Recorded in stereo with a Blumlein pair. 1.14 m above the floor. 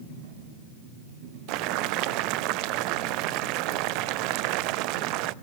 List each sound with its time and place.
1.5 s boiling: 40° right, 0.6 m